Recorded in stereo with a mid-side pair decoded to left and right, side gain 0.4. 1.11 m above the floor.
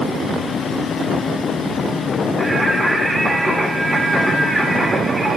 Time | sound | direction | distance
2.4 | singing | 30° right | 2 m